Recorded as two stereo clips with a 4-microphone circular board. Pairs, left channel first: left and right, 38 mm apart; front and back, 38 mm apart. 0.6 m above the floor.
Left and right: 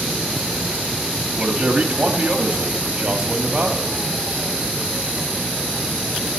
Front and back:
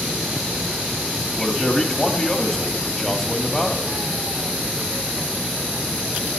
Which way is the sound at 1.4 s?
60° right.